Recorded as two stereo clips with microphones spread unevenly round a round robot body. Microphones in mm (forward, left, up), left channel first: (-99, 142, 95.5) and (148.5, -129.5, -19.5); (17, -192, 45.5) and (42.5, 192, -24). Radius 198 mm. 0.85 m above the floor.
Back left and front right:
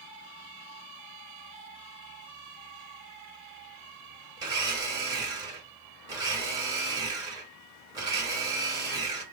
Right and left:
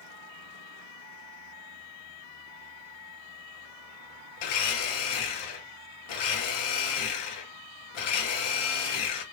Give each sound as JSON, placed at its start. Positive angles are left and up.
{"t": 4.4, "sound": "a blender", "azimuth_deg": -120, "distance_m": 1.2}